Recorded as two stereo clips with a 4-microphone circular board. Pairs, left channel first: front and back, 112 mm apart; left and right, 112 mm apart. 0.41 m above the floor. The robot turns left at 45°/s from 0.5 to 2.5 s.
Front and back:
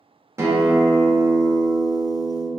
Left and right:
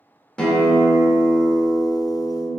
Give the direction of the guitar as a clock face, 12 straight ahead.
7 o'clock.